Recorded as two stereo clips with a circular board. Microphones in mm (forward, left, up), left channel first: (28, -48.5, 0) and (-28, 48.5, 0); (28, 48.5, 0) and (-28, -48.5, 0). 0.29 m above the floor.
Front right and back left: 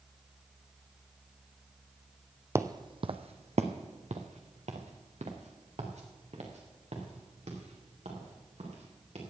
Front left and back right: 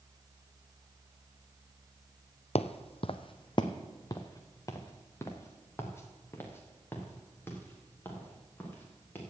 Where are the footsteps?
60° left, 0.5 m; by 9.2 s 135° left, 4.5 m.